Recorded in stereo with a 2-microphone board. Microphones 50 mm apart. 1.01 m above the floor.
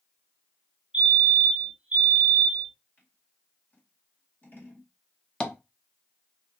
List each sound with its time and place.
0.9 s a fire alarm: 15° right (ahead or behind), 1.2 m
3.0 s scissors: 40° left (ahead or behind), 1.6 m
5.4 s tapping: 15° left (ahead or behind), 0.5 m